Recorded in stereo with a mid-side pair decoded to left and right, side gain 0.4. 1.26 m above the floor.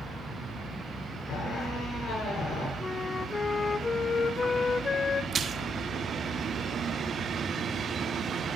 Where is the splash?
45° right, 1.4 m.